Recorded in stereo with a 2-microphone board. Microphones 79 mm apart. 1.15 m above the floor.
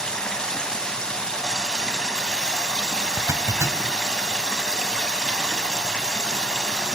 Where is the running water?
10° left (ahead or behind), 3.5 m.